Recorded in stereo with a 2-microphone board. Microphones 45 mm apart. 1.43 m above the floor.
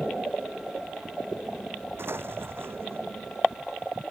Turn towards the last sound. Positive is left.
turn(degrees=-65)  # may be behind; listen again after turning